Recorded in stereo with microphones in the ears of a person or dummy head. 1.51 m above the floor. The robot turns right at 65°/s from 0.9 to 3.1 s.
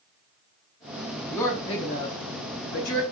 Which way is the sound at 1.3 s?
5° left.